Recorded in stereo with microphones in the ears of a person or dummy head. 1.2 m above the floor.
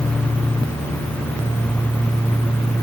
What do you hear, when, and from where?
Only background noise.